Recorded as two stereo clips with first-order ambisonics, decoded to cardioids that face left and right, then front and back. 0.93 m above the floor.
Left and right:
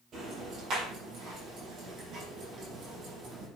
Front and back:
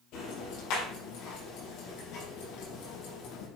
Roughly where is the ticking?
Ahead right.